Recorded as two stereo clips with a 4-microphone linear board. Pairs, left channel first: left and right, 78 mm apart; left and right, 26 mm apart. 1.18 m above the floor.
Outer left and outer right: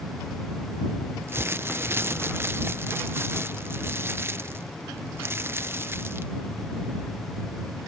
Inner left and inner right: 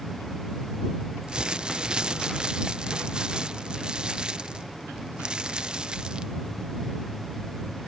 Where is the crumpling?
30° right (ahead or behind).